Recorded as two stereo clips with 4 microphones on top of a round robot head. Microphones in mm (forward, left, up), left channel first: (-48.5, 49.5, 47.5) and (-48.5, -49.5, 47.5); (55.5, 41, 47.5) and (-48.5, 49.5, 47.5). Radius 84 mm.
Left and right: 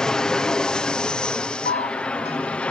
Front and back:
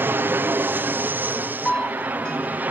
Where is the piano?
80° left.